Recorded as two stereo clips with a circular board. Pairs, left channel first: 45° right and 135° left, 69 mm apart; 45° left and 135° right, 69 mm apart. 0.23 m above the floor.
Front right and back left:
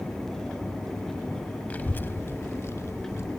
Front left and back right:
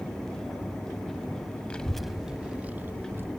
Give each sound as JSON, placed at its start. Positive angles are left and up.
{"t": 1.7, "sound": "a child speaking", "azimuth_deg": -10, "distance_m": 0.6}